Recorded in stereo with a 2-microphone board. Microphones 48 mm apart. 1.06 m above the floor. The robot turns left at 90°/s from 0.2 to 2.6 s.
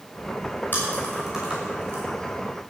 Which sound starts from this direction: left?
Chewing, at 0.7 s.